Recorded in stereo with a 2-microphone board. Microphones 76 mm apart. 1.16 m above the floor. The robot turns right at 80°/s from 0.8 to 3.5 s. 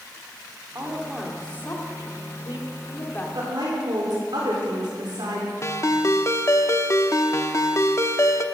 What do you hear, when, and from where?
0.8 s a woman speaking: 35° right, 2.5 m; by 3.2 s 160° left, 2.5 m
3.4 s a woman speaking: 65° right (ahead or behind), 3.5 m; by 5.5 s 75° right (ahead or behind), 3.5 m
5.6 s a ringtone: 40° left (ahead or behind), 0.8 m